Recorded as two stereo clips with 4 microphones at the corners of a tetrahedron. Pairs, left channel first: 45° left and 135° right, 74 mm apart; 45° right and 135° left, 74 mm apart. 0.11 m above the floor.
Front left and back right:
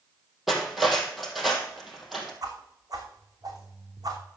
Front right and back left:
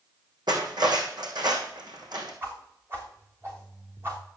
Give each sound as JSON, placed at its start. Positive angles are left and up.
{"t": 0.5, "sound": "cutlery clinking", "azimuth_deg": 135, "distance_m": 2.5}
{"t": 2.4, "sound": "a whoosh", "azimuth_deg": -170, "distance_m": 3.0}